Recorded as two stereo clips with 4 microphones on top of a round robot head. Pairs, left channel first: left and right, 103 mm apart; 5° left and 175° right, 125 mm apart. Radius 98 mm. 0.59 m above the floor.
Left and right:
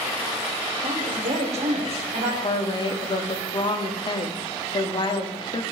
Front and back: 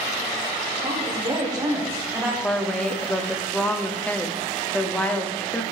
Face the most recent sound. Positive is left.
turn(degrees=85)